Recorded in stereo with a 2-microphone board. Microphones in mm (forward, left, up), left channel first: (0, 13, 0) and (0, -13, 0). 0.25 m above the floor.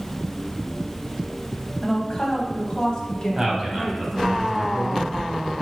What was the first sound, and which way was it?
A woman speaking, 20° left (ahead or behind).